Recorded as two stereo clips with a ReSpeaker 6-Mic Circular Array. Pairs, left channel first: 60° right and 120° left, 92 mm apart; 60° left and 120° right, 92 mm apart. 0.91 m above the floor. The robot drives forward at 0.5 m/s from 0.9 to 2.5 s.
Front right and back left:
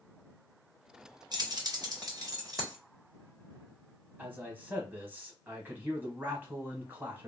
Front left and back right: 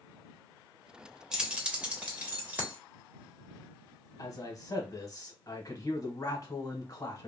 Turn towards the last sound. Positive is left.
turn(degrees=60)